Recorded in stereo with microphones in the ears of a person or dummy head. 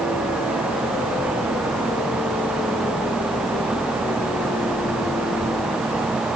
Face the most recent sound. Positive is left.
No sound to turn to.